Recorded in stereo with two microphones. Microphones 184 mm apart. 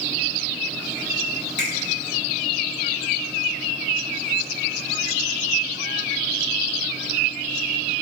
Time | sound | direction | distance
1.6 | a finger snap | 40° right (ahead or behind) | 1.2 m